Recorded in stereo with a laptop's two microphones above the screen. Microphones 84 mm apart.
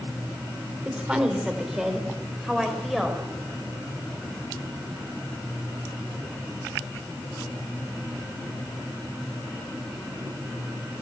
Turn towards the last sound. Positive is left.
turn(degrees=0)  # may be behind; listen again after turning